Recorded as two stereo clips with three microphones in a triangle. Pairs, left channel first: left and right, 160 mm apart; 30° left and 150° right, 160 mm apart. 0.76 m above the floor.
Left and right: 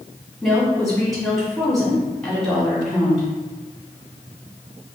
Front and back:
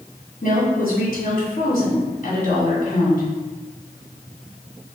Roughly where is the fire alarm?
I don't hear a fire alarm.